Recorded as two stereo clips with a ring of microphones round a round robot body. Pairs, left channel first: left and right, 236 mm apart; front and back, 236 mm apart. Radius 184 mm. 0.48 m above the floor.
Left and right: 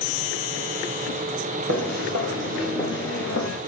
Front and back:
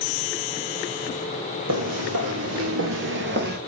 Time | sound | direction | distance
1.7 | footsteps | 140° right | 0.9 m